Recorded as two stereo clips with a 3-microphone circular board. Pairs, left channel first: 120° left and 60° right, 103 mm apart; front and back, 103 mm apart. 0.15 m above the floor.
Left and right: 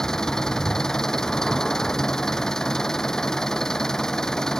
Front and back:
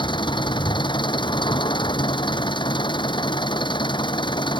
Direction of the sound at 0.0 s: 35° left.